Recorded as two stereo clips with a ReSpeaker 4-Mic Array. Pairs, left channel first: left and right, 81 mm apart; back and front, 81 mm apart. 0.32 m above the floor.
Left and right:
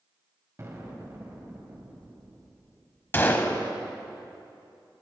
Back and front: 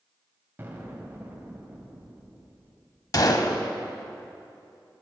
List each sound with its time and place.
0.6 s an explosion: 50° right, 1.9 m
3.1 s a gunshot: 150° left, 0.9 m